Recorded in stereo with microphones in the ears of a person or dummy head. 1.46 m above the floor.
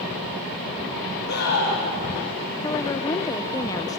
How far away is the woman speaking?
About 0.7 m.